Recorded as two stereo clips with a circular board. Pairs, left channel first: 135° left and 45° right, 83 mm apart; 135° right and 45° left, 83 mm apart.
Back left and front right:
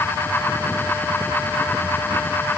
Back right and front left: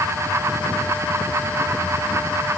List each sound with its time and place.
Only background noise.